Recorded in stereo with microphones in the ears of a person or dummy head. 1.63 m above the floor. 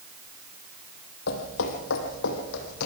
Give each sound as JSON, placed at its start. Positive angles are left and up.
{"t": 1.3, "sound": "footsteps", "side_deg": 55, "distance_m": 3.0}